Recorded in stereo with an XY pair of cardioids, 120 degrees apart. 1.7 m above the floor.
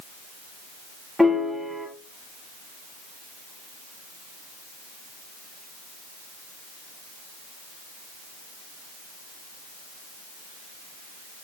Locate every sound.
1.2 s a piano: 5° right, 2.5 m